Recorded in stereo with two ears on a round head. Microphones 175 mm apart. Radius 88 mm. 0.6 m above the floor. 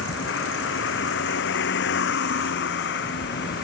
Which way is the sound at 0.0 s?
70° left (ahead or behind).